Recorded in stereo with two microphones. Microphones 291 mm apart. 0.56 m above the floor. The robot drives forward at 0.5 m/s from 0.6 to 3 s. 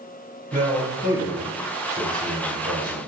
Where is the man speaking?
30° right (ahead or behind), 1.9 m; by 3.0 s 55° right (ahead or behind), 1.1 m.